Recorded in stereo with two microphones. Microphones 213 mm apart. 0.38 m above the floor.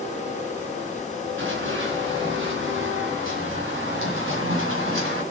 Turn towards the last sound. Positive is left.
turn(degrees=-80)